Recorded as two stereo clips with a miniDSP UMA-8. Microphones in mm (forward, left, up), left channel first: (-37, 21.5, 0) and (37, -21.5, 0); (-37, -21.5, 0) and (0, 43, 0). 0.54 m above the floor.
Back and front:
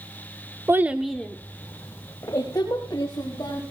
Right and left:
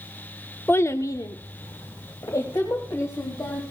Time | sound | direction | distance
0.7 | a child speaking | 75° right | 0.9 m